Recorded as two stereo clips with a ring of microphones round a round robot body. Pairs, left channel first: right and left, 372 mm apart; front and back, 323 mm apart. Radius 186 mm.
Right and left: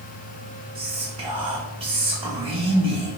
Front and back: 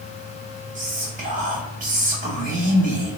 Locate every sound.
0.8 s whispering: 150° left, 1.0 m